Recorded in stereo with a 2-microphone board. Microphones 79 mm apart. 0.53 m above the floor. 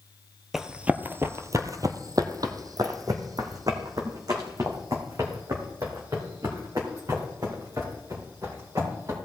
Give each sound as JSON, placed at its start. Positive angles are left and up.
{"t": 0.5, "sound": "running footsteps", "side_deg": -5, "distance_m": 0.6}